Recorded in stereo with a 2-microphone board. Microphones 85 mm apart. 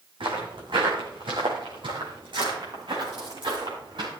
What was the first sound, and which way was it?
Footsteps, 75° right (ahead or behind).